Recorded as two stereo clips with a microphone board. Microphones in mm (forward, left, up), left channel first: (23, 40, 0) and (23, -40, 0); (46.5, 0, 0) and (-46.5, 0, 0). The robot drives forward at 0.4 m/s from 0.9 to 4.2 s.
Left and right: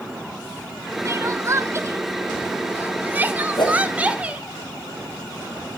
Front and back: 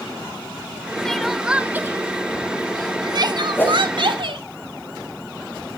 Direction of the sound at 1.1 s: 75° right.